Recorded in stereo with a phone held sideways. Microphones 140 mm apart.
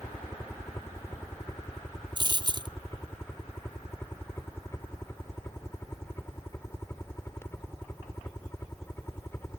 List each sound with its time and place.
0.0 s a helicopter: 15° left (ahead or behind)
2.2 s a dropped coin: 30° right (ahead or behind)